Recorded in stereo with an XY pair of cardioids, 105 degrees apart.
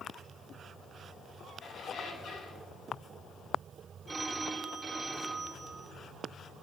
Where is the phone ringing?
20° right, 4 m.